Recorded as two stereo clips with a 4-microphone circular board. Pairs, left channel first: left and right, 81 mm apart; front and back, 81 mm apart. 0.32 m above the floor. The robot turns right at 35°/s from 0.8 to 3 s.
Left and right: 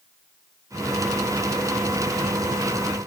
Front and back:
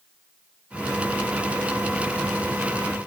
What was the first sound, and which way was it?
Only background noise.